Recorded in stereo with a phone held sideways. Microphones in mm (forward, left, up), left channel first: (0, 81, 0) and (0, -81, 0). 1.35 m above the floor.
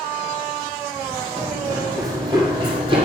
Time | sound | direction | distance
1.4 | running footsteps | 20° right (ahead or behind) | 2.5 m